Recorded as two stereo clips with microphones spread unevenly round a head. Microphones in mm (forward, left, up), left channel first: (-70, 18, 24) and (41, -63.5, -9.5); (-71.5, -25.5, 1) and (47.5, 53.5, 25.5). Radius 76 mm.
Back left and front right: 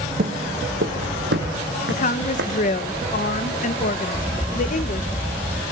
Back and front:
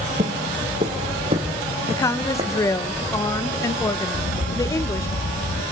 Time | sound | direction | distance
0.2 | footsteps | straight ahead | 1.8 m
1.9 | a woman speaking | 165° left | 1.0 m
4.1 | a crack | 115° right | 1.8 m